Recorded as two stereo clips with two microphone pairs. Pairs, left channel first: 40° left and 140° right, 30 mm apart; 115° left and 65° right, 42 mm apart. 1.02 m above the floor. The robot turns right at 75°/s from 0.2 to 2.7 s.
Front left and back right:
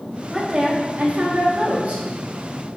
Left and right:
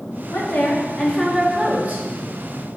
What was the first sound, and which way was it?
A woman speaking, 135° left.